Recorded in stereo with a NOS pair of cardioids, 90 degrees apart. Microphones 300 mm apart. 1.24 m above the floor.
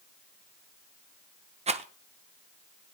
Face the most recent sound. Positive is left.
turn(degrees=-25)